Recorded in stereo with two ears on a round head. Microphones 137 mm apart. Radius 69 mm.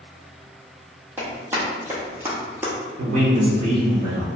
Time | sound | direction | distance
1.2 | running footsteps | 15° right (ahead or behind) | 1.6 m
3.0 | a man speaking | 50° right (ahead or behind) | 1.1 m